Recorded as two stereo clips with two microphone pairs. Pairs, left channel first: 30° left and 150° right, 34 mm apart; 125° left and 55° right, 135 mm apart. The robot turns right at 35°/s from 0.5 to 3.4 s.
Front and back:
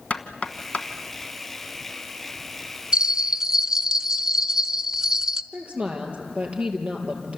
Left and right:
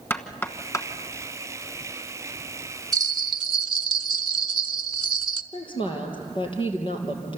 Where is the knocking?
60° left, 1.3 m; by 0.9 s 70° left, 1.3 m.